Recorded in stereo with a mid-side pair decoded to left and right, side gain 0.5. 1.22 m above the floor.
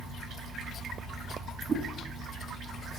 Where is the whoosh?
35° right, 3 m.